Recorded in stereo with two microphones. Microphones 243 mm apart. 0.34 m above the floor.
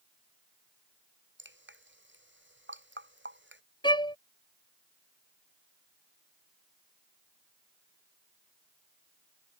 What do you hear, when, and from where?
1.4 s dripping: 50° right (ahead or behind)
3.8 s a violin: 20° left (ahead or behind)